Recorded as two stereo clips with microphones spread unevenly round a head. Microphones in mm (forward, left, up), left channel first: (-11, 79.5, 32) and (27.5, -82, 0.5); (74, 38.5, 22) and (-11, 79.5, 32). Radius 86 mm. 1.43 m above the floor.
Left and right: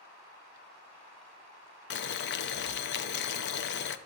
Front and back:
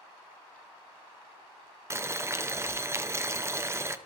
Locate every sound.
1.9 s boiling: 90° left, 0.6 m